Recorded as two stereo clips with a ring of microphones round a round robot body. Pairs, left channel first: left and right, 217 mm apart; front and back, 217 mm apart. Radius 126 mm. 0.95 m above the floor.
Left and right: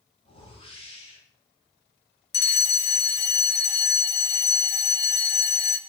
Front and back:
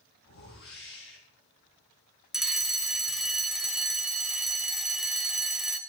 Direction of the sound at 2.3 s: 95° left.